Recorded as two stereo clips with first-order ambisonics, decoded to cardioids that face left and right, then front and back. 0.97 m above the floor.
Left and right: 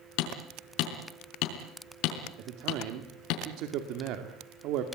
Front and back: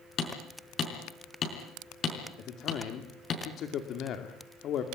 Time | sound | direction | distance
0.2 | hammering | 60° left | 5 m
2.4 | a man speaking | 55° right | 2 m